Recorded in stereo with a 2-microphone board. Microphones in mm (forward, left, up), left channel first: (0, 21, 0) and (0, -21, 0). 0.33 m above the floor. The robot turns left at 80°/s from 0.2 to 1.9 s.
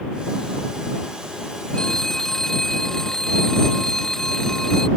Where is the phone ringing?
20° left (ahead or behind); by 4.9 s 10° left (ahead or behind).